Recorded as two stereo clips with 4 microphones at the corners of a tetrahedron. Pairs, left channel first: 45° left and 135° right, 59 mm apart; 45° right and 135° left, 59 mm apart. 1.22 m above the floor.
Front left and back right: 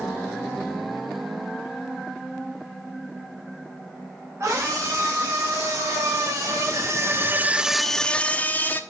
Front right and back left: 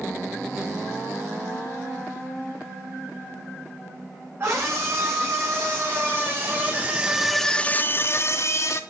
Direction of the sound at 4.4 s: 175° right.